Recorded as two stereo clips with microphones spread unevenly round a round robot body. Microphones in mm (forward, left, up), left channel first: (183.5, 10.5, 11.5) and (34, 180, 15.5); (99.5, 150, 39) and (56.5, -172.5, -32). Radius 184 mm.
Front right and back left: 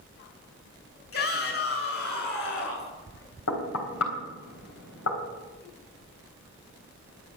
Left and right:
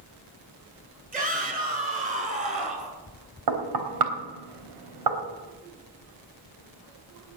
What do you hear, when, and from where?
1.1 s a shout: 30° right, 8.5 m
3.5 s knocking: 90° right, 3.5 m